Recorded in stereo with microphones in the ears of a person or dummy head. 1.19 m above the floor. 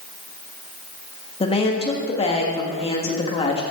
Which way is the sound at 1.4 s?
25° left (ahead or behind).